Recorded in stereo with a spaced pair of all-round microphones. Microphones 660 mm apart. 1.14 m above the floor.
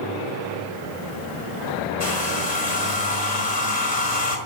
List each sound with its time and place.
2.0 s a hair dryer: 80° left, 4 m